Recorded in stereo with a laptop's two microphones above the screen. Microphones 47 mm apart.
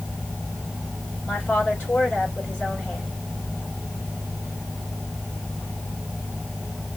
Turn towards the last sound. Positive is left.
turn(degrees=30)  # may be behind; listen again after turning